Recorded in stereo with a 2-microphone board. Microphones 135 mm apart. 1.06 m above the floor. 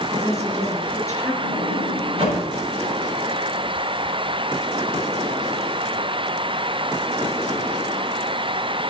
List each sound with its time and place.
0.1 s a woman speaking: 20° left (ahead or behind), 6.5 m
1.4 s a sliding door: 45° right (ahead or behind), 6.5 m